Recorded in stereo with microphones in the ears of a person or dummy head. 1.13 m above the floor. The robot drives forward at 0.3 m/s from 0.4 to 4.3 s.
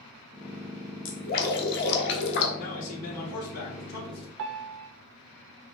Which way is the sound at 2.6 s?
85° left.